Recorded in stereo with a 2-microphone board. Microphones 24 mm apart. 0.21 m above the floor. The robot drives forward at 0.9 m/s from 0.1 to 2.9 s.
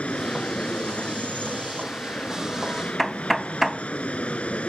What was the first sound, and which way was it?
An aircraft, 60° left (ahead or behind).